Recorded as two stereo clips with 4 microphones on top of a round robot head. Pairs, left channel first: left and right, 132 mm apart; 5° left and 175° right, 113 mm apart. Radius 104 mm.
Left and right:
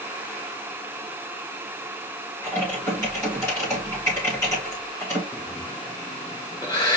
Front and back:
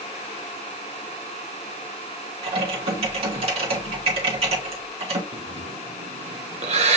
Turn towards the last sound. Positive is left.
turn(degrees=165)